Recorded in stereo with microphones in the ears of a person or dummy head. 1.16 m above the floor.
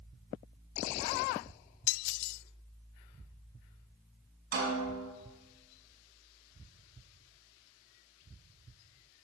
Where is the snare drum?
50° right (ahead or behind), 5 m.